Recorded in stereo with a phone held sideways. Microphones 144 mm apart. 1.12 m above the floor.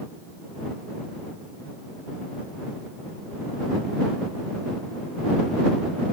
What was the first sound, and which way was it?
Only background noise.